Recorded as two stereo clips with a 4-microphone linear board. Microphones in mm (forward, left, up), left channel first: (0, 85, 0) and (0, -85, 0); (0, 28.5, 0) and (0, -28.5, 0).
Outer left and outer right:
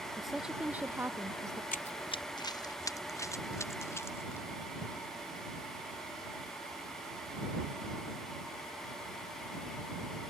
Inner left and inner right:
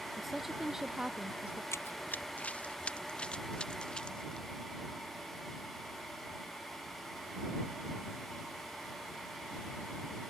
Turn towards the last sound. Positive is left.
turn(degrees=15)  # may be behind; listen again after turning